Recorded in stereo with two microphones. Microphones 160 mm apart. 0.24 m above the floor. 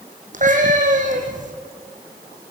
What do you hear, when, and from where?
0.3 s a cat meowing: 55° right (ahead or behind), 4 m